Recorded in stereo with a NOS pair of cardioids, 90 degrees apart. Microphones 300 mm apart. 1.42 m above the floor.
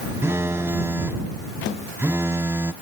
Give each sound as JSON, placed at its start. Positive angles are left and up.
{"t": 0.2, "sound": "a phone buzzing", "azimuth_deg": -10}